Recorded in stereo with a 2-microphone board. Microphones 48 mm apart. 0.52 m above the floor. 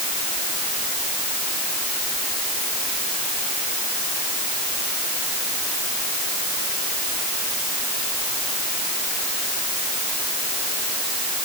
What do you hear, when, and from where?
Only background noise.